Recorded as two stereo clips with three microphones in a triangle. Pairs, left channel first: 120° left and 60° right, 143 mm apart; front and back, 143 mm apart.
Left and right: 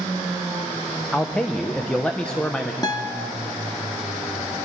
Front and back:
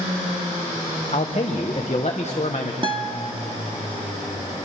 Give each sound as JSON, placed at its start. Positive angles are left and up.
{"t": 1.1, "sound": "a man speaking", "azimuth_deg": 35, "distance_m": 1.0}
{"t": 2.8, "sound": "a guitar", "azimuth_deg": 160, "distance_m": 1.1}